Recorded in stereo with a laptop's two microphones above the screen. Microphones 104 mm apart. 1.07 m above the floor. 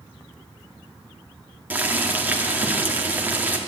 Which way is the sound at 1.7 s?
15° right (ahead or behind).